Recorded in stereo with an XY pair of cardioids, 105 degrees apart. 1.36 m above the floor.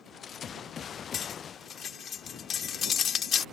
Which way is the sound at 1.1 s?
55° left.